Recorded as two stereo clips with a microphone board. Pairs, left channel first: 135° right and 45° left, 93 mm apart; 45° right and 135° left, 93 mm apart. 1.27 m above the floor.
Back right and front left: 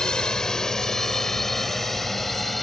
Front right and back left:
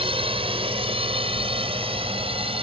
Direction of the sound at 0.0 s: 145° left.